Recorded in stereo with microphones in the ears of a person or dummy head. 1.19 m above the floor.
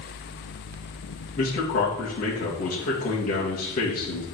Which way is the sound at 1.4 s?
45° left (ahead or behind).